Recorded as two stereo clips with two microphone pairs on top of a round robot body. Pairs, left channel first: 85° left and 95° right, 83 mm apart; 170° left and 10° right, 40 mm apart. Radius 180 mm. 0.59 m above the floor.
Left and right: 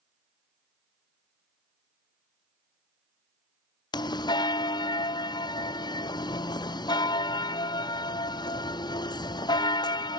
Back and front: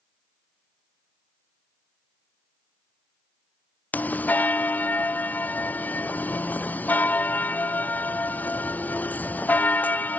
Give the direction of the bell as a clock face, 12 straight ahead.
8 o'clock.